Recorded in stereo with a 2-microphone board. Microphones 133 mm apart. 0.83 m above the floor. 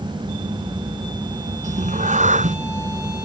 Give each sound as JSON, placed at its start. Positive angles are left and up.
{"t": 1.6, "sound": "a cat meowing", "side_deg": -70}